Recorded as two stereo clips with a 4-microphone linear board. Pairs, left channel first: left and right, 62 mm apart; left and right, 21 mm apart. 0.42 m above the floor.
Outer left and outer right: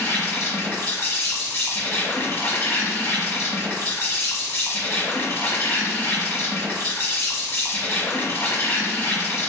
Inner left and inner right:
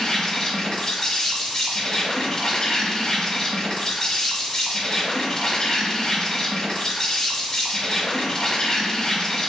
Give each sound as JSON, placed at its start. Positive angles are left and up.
{"t": 0.0, "sound": "an insect", "side_deg": 35, "distance_m": 1.0}